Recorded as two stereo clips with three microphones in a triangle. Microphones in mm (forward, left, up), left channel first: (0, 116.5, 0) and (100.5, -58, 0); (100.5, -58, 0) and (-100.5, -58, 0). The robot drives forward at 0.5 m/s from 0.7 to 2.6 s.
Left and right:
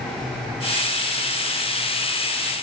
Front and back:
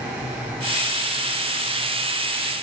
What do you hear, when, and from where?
Only background noise.